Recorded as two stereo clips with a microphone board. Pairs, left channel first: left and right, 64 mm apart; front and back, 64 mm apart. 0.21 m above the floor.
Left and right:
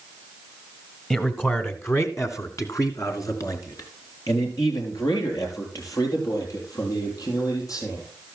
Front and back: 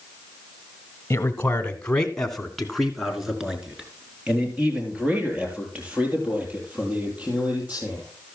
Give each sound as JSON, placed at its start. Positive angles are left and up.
{"t": 1.1, "sound": "a man speaking", "azimuth_deg": 30, "distance_m": 1.3}